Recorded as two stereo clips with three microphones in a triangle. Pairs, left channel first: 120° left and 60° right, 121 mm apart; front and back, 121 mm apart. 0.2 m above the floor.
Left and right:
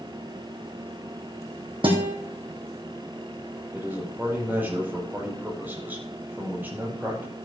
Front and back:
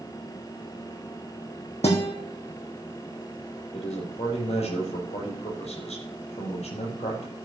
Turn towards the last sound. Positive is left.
turn(degrees=15)